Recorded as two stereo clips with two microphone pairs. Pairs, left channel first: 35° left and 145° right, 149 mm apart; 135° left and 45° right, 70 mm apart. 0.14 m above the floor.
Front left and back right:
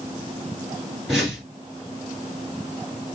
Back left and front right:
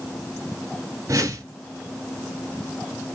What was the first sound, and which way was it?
A whoosh, 55° right.